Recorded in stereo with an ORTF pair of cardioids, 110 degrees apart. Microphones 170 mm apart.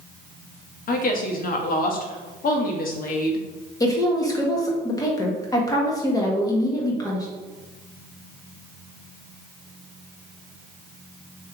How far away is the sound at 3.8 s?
About 1.5 m.